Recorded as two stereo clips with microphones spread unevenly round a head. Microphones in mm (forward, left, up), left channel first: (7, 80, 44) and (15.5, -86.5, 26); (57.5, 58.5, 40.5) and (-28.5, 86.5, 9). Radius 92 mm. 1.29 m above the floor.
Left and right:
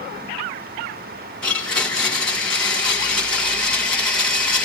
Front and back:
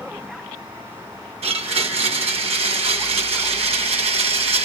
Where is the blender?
175° left, 2 m.